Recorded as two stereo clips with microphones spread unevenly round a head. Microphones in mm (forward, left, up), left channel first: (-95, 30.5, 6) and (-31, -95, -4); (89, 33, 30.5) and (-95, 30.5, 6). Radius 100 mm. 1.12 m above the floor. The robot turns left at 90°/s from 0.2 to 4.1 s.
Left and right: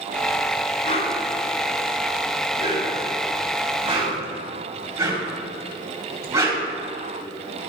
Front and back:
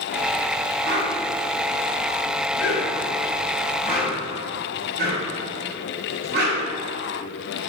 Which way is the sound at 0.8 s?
160° left.